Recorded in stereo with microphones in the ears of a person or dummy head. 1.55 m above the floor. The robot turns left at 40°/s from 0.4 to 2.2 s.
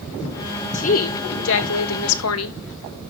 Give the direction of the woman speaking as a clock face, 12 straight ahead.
7 o'clock.